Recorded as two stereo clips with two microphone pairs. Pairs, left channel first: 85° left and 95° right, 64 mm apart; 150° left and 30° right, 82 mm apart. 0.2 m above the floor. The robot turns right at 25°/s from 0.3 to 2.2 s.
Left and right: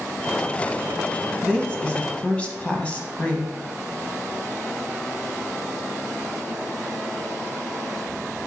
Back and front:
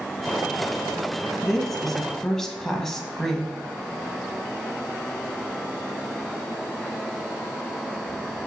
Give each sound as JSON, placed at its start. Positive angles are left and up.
{"t": 1.4, "sound": "a woman speaking", "azimuth_deg": 60, "distance_m": 1.3}